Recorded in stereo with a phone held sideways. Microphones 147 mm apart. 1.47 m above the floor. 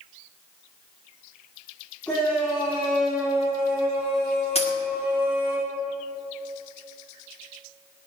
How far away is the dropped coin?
About 2.0 m.